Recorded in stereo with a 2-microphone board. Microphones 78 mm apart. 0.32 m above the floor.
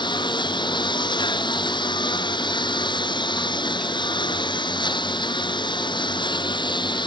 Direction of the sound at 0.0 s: 75° left (ahead or behind).